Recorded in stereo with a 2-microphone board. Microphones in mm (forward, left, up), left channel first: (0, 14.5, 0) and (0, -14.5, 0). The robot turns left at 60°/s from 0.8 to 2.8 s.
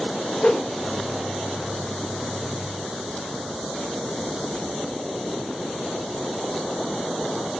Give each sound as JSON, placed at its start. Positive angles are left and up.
{"t": 0.4, "sound": "a whoosh", "side_deg": 35, "distance_m": 0.6}